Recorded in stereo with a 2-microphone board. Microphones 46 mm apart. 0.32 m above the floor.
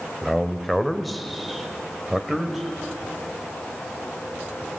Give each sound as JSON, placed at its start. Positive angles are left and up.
{"t": 0.2, "sound": "a man speaking", "side_deg": 0, "distance_m": 1.4}